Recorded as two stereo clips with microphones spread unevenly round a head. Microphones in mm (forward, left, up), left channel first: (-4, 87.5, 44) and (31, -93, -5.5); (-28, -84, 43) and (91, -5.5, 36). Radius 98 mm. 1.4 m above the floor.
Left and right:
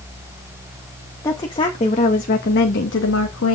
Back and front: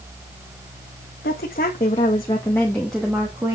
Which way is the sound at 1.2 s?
175° left.